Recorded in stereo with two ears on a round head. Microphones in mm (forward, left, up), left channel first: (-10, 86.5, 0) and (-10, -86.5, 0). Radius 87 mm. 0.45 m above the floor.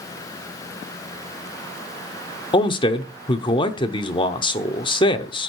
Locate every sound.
2.5 s a man speaking: 25° left (ahead or behind), 0.8 m